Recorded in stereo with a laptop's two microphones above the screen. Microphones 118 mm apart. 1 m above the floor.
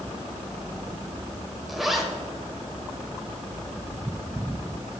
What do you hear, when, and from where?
1.7 s a zipper: centre (ahead or behind), 1.8 m